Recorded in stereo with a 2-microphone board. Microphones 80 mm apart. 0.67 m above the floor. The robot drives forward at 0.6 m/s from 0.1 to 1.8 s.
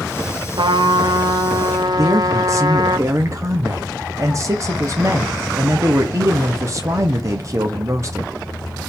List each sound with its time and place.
0.6 s a trumpet: 85° right, 1.0 m; by 3.0 s 55° right (ahead or behind), 1.1 m
2.0 s a man speaking: 40° right (ahead or behind), 0.8 m